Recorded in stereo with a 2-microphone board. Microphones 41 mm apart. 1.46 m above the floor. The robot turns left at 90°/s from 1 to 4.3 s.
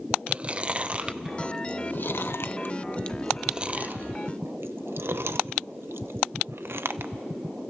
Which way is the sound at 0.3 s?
30° right (ahead or behind).